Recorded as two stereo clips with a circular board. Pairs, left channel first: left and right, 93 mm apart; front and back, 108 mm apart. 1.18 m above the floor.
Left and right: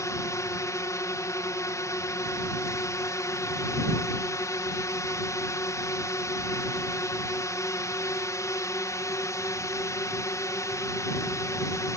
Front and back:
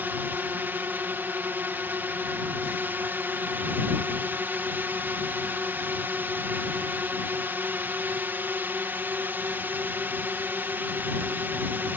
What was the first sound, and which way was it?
A drone, 120° left.